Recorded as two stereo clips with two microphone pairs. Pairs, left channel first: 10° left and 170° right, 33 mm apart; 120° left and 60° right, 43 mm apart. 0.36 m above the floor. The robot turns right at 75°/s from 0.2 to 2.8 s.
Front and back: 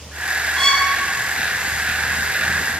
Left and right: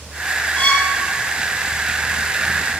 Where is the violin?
75° left, 1.7 m; by 0.9 s 100° left, 1.7 m.